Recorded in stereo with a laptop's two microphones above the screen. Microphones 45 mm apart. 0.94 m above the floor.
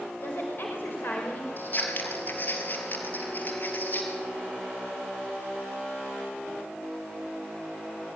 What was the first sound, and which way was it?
A woman speaking, 50° left (ahead or behind).